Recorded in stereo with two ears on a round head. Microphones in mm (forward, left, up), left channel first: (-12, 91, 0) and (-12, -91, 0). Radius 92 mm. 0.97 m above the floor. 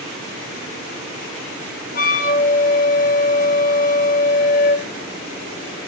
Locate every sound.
1.9 s a flute: 40° left (ahead or behind), 1.2 m